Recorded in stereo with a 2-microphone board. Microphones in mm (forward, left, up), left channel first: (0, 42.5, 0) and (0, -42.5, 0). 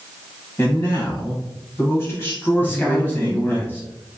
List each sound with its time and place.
0.6 s a man speaking: 25° left (ahead or behind), 1.0 m
2.6 s a man speaking: 20° left (ahead or behind), 1.1 m